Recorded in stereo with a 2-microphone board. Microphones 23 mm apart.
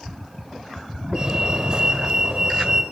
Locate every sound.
1.1 s a fire alarm: 30° right (ahead or behind), 4.5 m